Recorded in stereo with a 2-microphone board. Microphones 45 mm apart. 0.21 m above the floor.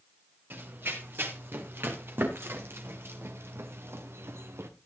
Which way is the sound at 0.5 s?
55° right (ahead or behind).